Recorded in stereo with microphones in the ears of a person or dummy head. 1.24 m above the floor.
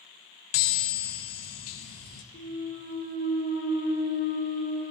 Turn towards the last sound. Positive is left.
turn(degrees=55)  # may be behind; listen again after turning